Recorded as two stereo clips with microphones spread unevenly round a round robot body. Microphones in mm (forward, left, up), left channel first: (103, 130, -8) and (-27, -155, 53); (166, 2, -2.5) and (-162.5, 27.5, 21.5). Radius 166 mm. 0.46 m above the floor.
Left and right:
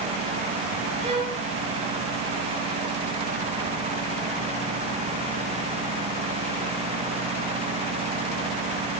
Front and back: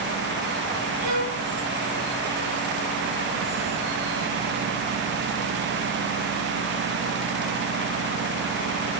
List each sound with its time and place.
1.0 s a violin: 170° left, 4 m